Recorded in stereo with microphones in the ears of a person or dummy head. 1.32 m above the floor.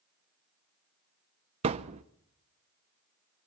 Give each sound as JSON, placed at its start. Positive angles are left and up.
{"t": 1.6, "sound": "a thud", "side_deg": -30, "distance_m": 0.8}